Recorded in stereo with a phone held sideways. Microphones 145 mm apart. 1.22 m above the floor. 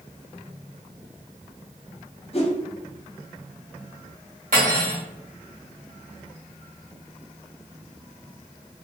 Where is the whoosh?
45° left (ahead or behind), 0.7 m.